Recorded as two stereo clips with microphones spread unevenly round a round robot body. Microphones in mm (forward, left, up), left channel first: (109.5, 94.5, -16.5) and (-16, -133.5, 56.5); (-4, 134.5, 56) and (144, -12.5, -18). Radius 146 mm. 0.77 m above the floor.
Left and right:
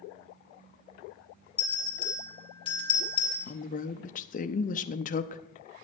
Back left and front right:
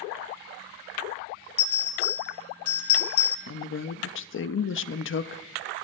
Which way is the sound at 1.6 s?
130° left.